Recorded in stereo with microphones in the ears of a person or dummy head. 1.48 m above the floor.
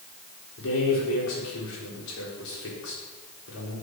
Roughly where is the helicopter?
I don't hear a helicopter.